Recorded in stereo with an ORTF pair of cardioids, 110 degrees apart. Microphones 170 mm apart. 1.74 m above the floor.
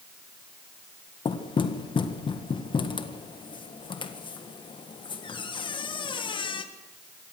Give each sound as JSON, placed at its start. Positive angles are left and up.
{"t": 1.2, "sound": "knocking", "azimuth_deg": 30, "distance_m": 1.6}